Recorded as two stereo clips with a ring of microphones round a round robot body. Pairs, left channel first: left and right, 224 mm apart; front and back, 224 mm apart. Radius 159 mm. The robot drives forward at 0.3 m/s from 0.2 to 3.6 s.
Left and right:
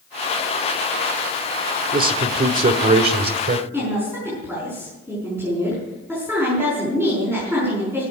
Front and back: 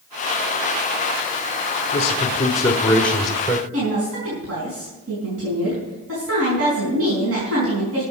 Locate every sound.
1.9 s a man speaking: 55° right, 1.0 m; by 3.6 s 100° right, 1.0 m
3.7 s a woman speaking: 175° left, 5 m